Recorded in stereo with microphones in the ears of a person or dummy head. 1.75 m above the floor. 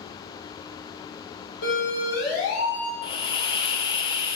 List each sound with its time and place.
1.6 s a siren: 85° left, 6 m
3.0 s a hiss: 30° left (ahead or behind), 0.9 m